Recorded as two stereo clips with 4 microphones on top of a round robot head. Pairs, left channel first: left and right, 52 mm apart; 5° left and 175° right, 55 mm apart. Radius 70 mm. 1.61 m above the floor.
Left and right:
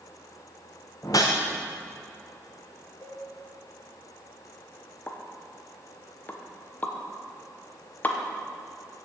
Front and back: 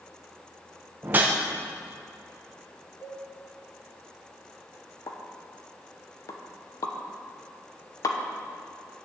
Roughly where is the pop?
Ahead left.